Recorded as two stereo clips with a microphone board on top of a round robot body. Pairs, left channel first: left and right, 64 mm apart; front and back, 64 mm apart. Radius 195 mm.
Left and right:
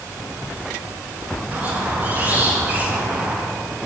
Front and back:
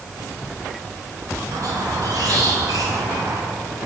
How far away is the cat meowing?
I don't hear a cat meowing.